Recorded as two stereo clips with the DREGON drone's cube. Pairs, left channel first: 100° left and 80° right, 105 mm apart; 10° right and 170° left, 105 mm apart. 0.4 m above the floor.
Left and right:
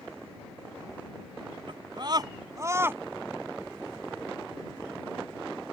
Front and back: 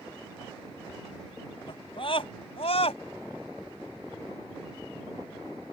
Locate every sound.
1.7 s a scream: 45° right; by 3.0 s 10° right